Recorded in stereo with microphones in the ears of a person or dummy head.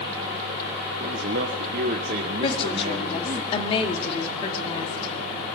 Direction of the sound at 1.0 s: 55° right (ahead or behind).